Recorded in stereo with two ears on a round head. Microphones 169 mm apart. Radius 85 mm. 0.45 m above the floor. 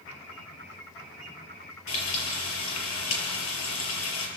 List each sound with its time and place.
1.9 s frying: 85° left, 5.5 m